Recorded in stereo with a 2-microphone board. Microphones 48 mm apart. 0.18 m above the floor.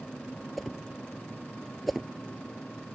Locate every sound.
0.6 s a whoosh: centre (ahead or behind)